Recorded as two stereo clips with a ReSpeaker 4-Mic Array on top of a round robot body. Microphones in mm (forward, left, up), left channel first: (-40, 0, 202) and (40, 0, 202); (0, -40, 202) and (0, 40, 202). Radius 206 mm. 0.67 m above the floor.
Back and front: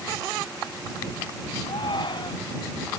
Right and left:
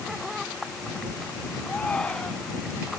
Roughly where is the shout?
Behind.